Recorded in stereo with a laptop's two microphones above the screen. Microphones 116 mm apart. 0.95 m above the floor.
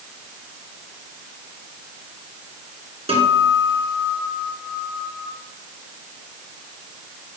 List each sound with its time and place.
3.1 s a guitar: 60° right (ahead or behind), 3 m